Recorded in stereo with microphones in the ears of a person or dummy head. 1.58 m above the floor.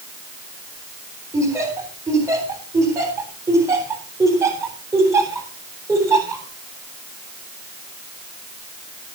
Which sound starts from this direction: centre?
Laughter, at 1.3 s.